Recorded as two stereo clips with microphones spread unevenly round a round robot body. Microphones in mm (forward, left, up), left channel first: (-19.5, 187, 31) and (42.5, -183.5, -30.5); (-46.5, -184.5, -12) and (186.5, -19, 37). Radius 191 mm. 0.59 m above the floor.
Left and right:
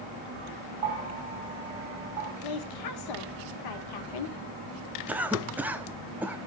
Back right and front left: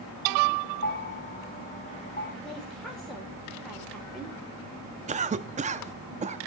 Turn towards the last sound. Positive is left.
turn(degrees=-20)